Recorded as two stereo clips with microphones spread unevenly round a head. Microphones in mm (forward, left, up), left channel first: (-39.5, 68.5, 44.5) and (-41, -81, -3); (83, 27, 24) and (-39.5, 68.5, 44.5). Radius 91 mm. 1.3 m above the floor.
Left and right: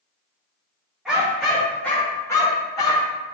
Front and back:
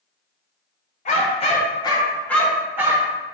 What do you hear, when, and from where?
1.1 s a dog barking: 10° left, 1.6 m; by 3.1 s 125° left, 1.3 m